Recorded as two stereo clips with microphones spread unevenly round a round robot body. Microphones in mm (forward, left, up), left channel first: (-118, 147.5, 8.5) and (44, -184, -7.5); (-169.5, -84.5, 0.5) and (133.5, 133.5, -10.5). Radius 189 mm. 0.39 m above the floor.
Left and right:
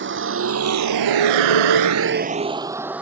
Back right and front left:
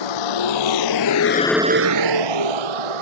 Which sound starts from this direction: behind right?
A vehicle, at 0.0 s.